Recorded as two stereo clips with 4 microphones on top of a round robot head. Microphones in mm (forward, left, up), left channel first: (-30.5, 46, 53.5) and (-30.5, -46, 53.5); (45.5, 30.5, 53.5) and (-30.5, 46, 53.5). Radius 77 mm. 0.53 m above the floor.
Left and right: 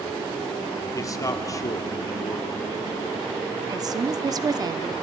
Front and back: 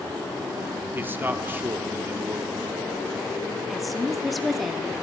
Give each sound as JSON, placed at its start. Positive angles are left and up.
{"t": 0.9, "sound": "a man speaking", "azimuth_deg": 120, "distance_m": 1.7}
{"t": 3.7, "sound": "a woman speaking", "azimuth_deg": -100, "distance_m": 1.0}